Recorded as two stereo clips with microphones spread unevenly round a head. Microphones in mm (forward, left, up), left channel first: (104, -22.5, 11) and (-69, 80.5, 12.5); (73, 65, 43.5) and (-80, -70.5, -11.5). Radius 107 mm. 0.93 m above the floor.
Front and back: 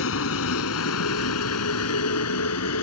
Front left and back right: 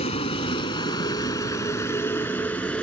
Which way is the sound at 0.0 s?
15° right.